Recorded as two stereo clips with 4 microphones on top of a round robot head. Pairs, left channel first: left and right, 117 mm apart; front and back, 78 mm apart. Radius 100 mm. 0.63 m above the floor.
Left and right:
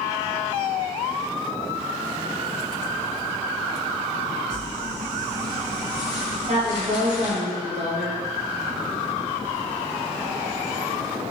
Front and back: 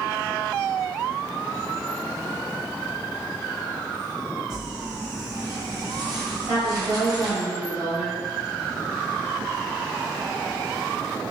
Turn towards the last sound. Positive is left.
turn(degrees=-110)